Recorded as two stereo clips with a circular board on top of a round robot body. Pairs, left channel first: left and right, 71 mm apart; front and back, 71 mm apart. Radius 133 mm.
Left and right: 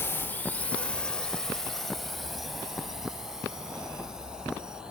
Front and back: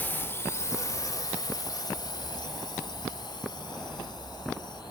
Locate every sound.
0.0 s a drone: 50° left; by 4.9 s 15° right